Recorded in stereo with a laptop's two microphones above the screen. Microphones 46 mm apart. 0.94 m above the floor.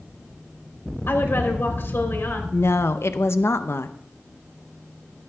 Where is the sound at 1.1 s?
55° left (ahead or behind), 3 m.